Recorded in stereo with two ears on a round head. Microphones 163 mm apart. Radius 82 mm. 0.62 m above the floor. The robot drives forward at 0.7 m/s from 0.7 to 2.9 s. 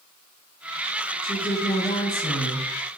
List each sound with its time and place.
1.2 s a woman speaking: 25° left (ahead or behind), 1.4 m; by 2.7 s 40° left (ahead or behind), 0.9 m